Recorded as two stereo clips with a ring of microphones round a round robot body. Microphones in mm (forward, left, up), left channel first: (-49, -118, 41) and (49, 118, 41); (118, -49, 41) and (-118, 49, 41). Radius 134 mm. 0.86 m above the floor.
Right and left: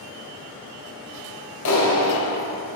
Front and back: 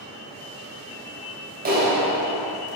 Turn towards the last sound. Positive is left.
turn(degrees=-145)